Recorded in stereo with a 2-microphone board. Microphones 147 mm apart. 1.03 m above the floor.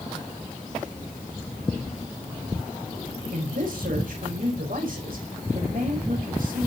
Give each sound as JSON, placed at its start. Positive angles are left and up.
{"t": 3.3, "sound": "a man speaking", "side_deg": -75, "distance_m": 5.5}